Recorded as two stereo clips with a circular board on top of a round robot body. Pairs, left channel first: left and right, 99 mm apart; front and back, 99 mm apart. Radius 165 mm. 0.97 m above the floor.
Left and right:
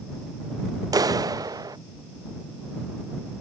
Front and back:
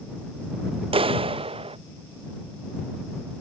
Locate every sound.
0.9 s a clap: 145° right